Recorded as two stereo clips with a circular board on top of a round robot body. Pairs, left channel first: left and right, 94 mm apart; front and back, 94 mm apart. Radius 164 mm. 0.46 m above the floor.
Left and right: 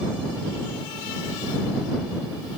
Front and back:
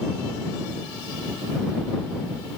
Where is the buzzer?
I don't hear a buzzer.